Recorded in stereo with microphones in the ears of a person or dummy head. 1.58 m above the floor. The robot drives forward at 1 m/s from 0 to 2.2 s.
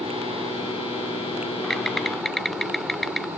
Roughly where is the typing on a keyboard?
Centre.